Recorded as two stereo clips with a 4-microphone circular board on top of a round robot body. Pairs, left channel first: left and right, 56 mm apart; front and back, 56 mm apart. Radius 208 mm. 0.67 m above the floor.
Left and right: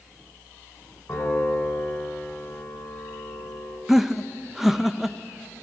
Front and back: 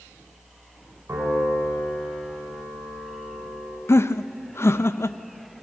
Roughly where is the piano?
Behind left.